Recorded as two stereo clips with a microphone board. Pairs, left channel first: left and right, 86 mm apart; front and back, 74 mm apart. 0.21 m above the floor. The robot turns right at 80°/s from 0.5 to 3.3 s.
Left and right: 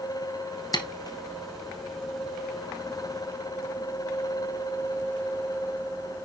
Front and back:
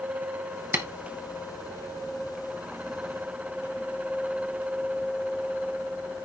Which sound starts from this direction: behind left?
Tapping, at 0.7 s.